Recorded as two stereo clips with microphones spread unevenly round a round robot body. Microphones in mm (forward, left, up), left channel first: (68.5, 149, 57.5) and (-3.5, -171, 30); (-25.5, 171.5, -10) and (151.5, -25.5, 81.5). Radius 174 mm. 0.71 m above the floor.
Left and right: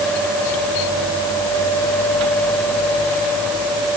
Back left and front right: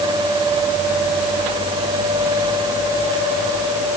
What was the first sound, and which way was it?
Only background noise.